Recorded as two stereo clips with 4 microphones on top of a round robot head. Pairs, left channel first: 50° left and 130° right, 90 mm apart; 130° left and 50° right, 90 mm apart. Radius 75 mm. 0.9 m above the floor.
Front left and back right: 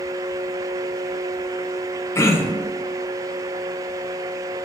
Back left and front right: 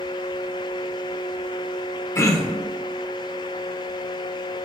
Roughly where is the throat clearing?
Left.